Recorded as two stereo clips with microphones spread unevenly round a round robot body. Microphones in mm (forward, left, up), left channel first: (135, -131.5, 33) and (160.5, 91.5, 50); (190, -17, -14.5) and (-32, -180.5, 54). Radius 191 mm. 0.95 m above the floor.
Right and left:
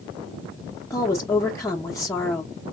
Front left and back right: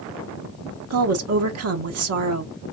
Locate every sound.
0.9 s a woman speaking: 165° right, 0.6 m